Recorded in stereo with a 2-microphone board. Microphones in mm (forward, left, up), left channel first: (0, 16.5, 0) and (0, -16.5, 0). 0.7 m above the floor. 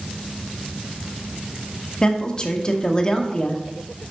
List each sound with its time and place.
2.0 s a woman speaking: 25° left (ahead or behind), 0.8 m